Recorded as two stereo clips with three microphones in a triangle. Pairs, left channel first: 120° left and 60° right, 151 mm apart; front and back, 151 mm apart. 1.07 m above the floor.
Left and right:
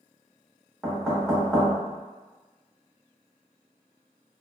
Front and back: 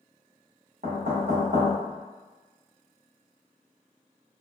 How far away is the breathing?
I don't hear breathing.